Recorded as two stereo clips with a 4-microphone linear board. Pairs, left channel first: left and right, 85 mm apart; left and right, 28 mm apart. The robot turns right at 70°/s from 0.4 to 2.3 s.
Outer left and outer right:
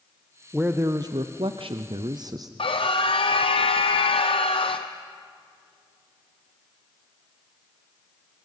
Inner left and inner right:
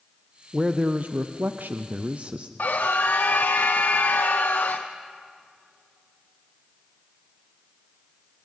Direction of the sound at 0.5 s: 165° right.